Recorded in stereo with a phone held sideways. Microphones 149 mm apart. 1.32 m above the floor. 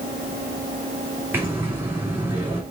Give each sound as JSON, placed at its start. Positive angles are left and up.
{"t": 1.3, "sound": "breathing", "side_deg": -15, "distance_m": 3.0}